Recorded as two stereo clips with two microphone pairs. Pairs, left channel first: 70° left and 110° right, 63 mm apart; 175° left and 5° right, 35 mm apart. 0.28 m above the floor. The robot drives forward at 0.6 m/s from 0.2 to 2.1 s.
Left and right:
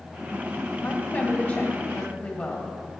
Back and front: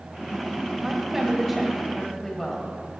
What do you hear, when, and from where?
0.8 s a woman speaking: 55° left, 1.6 m; by 2.8 s 110° left, 1.6 m